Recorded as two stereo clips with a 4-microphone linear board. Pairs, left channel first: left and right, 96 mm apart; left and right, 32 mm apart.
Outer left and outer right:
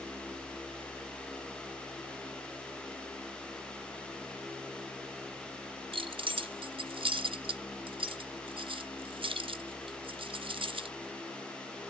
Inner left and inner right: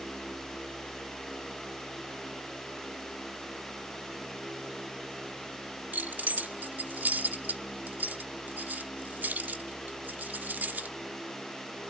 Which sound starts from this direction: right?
Keys jangling, at 5.9 s.